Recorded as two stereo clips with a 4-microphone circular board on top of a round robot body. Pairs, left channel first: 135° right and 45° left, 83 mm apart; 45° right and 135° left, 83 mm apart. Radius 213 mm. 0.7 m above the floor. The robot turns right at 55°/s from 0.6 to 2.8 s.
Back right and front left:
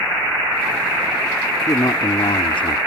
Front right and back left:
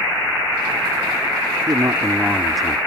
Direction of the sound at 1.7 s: 170° left.